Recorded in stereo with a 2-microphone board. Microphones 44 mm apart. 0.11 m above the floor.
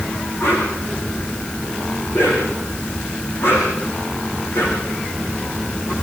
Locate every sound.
0.4 s a whoosh: 65° left (ahead or behind), 7 m